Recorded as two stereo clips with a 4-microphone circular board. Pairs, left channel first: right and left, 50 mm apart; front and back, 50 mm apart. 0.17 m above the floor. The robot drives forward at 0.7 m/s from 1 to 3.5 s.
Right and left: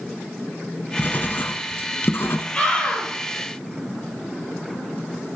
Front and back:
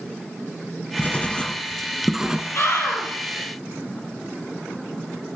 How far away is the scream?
About 5 m.